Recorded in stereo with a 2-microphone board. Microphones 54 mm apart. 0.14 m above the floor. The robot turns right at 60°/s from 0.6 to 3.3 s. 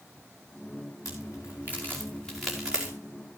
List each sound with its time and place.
1.1 s a crack: 85° left, 4.5 m; by 2.9 s 25° right (ahead or behind), 4.5 m